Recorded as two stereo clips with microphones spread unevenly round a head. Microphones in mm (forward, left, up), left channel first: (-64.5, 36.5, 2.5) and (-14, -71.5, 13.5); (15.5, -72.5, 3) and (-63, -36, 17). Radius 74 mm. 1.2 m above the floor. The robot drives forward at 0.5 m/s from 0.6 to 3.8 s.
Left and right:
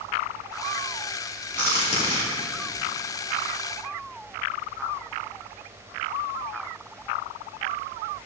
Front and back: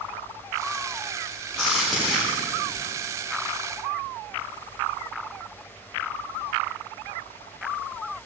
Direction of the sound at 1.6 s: 65° left.